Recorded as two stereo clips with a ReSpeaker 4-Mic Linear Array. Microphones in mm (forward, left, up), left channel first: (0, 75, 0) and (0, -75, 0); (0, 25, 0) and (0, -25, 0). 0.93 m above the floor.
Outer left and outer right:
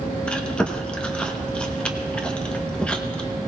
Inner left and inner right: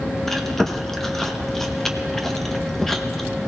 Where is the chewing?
5° left (ahead or behind), 1.0 m.